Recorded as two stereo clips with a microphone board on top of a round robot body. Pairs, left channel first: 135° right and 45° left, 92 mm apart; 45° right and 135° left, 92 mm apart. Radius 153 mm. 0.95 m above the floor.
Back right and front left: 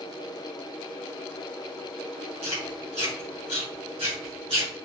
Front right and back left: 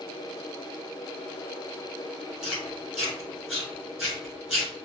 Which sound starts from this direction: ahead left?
Chewing, at 2.4 s.